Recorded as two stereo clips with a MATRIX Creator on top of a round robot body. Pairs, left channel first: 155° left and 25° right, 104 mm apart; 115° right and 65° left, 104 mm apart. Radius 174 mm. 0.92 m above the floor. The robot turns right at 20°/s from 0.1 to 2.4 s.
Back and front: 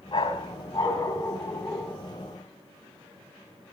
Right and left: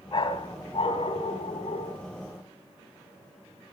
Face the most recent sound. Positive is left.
turn(degrees=-105)